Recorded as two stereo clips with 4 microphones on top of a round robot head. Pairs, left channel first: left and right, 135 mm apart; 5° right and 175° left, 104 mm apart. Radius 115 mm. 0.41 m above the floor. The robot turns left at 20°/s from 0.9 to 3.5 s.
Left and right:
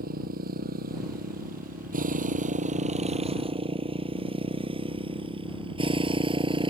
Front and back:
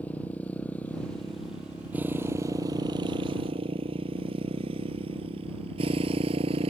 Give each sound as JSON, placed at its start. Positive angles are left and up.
{"t": 0.0, "sound": "a motorcycle", "azimuth_deg": -85}